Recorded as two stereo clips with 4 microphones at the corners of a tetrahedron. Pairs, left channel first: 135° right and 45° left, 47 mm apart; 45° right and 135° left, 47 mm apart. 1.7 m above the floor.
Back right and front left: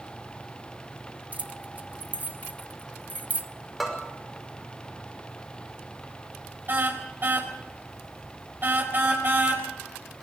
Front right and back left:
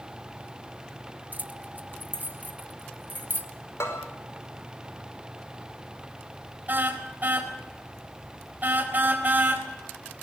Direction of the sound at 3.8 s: 40° right.